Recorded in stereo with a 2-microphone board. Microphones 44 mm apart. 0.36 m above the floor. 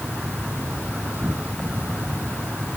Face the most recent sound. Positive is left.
turn(degrees=-45)  # may be behind; listen again after turning